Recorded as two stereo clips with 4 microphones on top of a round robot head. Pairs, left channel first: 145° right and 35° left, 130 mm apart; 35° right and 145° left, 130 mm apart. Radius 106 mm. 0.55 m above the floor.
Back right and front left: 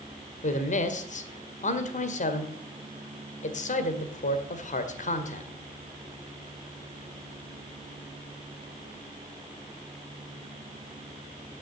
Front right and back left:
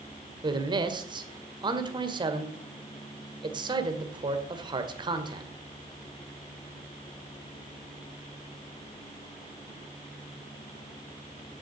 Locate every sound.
0.4 s a man speaking: 165° right, 1.9 m